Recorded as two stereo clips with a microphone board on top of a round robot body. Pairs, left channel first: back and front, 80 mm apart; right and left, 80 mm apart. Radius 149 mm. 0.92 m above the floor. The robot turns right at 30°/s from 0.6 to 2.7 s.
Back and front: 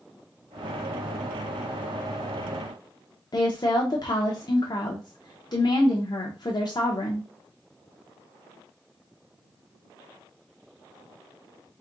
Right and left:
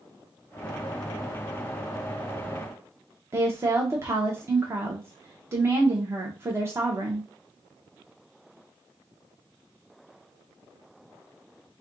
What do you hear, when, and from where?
3.3 s a woman speaking: 145° left, 0.9 m